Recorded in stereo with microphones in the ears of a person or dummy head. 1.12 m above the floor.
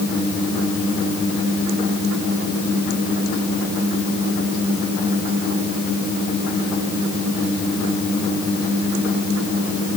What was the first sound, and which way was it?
Only background noise.